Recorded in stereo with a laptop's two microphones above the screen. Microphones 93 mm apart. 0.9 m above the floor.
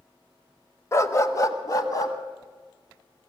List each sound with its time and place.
0.9 s a dog barking: 30° left (ahead or behind), 1.1 m; by 2.1 s 40° left (ahead or behind), 2 m